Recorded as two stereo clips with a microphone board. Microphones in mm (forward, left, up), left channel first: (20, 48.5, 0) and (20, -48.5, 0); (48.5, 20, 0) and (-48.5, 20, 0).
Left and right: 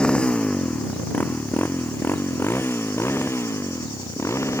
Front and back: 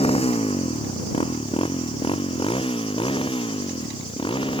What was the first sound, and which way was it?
A motorcycle, 10° left.